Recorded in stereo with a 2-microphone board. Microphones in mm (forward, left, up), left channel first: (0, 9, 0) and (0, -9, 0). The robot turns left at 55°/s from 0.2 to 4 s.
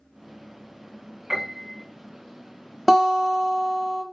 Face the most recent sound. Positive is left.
turn(degrees=-90)